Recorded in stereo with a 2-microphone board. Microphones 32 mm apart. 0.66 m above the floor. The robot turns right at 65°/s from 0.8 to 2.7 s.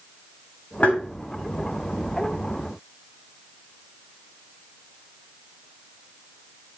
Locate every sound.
0.8 s tapping: 50° left (ahead or behind), 3 m; by 1.0 s 65° left (ahead or behind), 3 m